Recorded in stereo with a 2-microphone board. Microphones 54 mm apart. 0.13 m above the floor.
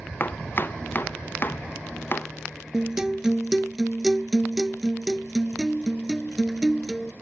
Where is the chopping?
40° left (ahead or behind).